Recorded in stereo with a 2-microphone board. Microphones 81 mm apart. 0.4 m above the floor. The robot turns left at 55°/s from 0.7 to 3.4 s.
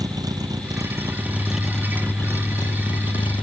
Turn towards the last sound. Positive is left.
turn(degrees=85)